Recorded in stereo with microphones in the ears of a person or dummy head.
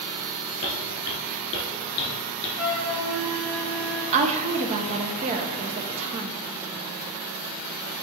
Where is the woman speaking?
35° right (ahead or behind), 0.8 m.